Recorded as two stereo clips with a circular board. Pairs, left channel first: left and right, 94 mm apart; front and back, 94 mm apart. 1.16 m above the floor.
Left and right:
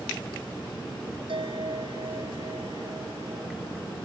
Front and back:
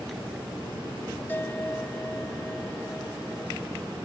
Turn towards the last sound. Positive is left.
turn(degrees=-70)